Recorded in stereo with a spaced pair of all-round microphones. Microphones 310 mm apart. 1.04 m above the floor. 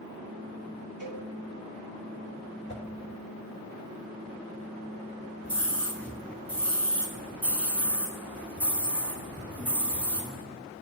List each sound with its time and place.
1.0 s a cowbell: 35° left (ahead or behind), 2 m
2.7 s a whoosh: 35° left (ahead or behind), 1.7 m
5.4 s a scream: 5° left (ahead or behind), 1.8 m